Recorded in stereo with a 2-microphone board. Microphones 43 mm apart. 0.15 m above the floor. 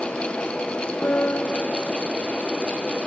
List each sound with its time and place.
1.0 s a piano: 50° left (ahead or behind), 1.1 m